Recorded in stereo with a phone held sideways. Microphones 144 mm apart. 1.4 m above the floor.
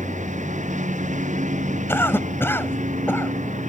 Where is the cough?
15° left (ahead or behind).